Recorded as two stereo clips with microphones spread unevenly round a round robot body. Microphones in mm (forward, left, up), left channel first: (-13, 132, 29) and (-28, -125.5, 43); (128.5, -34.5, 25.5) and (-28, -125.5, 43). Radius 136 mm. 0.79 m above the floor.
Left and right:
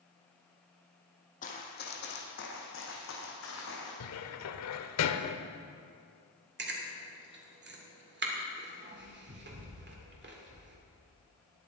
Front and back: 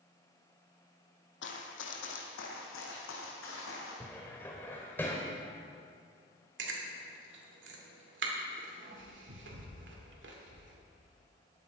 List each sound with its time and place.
1.4 s running footsteps: 25° left, 1.9 m; by 3.9 s 45° left, 4 m
4.0 s a cupboard door: 115° left, 0.8 m
6.6 s chewing: 140° right, 2.5 m